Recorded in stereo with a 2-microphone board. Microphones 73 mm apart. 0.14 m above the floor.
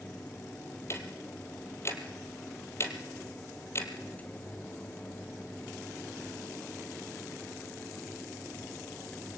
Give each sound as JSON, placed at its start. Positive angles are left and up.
{"t": 0.9, "sound": "ticking", "side_deg": 40, "distance_m": 2.5}